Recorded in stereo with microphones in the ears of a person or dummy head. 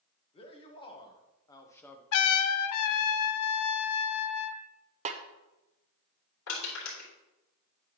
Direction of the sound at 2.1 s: 85° left.